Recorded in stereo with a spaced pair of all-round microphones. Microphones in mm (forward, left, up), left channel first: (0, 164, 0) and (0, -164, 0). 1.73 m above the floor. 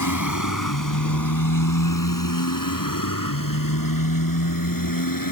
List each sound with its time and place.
0.0 s a motorcycle: 65° left (ahead or behind); by 5.3 s 80° left